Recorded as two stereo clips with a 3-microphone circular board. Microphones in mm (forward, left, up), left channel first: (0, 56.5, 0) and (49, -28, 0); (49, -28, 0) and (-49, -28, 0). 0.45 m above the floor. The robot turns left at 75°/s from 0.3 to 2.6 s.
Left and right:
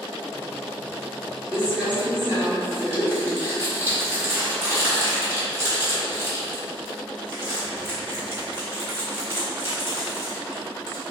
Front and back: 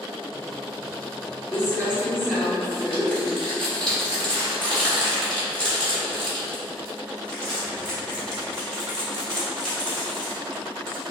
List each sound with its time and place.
1.5 s crumpling: 15° left, 1.3 m; by 11.0 s 65° right, 1.3 m